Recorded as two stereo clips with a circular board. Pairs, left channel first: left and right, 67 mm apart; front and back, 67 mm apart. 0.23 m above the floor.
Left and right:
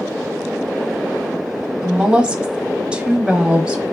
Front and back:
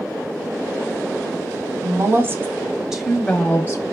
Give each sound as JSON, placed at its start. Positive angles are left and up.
{"t": 1.8, "sound": "a woman speaking", "azimuth_deg": -160, "distance_m": 1.9}